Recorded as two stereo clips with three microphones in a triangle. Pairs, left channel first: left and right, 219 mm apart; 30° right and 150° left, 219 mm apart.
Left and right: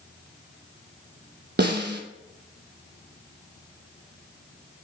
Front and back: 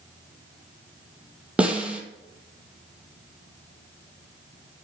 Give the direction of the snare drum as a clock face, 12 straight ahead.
4 o'clock.